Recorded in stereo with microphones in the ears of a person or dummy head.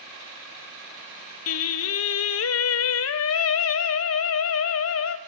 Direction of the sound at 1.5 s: 75° left (ahead or behind).